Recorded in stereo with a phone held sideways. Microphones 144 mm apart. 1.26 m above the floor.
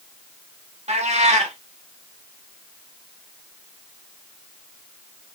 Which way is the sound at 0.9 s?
50° right (ahead or behind).